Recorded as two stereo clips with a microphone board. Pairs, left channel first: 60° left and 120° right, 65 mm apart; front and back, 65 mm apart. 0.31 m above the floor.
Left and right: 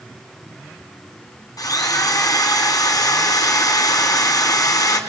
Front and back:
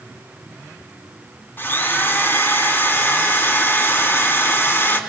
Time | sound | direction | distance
1.6 | a drill | 55° left | 3 m